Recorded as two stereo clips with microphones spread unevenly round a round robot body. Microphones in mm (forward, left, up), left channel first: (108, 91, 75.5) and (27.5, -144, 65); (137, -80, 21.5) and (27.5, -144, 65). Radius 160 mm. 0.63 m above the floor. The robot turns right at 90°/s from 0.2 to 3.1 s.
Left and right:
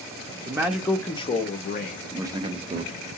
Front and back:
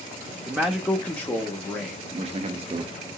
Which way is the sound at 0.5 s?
55° right.